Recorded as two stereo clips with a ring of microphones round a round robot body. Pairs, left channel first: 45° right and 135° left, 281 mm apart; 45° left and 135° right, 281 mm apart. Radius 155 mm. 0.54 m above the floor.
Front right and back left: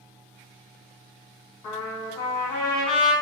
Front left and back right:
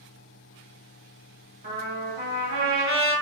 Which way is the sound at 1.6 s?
65° right.